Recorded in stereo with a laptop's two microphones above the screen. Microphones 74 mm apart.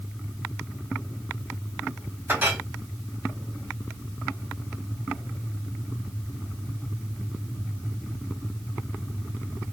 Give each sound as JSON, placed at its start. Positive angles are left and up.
{"t": 2.3, "sound": "a clink", "side_deg": -25, "distance_m": 1.4}